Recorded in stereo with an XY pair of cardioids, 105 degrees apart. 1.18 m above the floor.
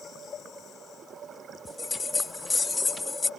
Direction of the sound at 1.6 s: 25° left.